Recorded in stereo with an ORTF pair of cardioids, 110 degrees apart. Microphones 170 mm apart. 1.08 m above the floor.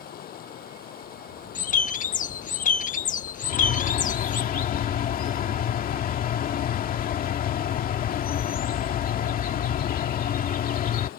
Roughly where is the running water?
Ahead left.